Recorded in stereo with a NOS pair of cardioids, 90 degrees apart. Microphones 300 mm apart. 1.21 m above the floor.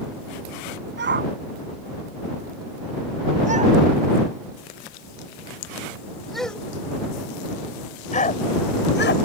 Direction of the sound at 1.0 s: 35° right.